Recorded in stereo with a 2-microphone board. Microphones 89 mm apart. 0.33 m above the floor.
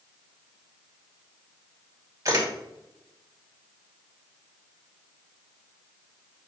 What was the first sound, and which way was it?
A camera shutter, 40° right (ahead or behind).